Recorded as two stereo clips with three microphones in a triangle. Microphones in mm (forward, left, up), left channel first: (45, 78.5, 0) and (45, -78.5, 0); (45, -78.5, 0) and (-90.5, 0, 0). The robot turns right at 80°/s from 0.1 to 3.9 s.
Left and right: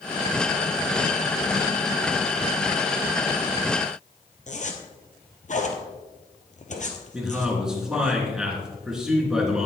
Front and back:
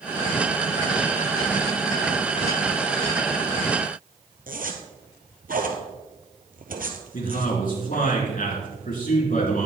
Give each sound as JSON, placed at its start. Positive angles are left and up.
{"t": 4.5, "sound": "a zipper", "azimuth_deg": 125, "distance_m": 1.4}
{"t": 7.1, "sound": "a man speaking", "azimuth_deg": -5, "distance_m": 3.5}